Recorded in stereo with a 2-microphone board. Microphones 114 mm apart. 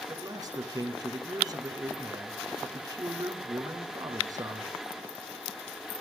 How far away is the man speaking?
About 2.0 m.